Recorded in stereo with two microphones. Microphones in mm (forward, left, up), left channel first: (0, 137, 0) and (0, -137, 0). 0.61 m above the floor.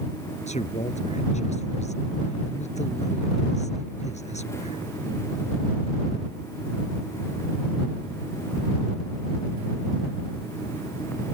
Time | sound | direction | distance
0.5 | a man speaking | 25° left (ahead or behind) | ?